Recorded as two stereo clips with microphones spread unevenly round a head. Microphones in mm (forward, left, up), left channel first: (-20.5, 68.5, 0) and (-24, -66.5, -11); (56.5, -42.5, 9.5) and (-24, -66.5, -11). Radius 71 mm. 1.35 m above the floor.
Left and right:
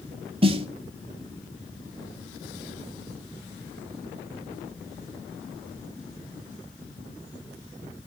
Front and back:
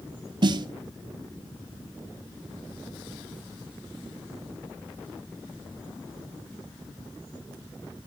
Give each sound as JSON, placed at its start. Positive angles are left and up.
{"t": 0.4, "sound": "a snare drum", "azimuth_deg": -135, "distance_m": 1.4}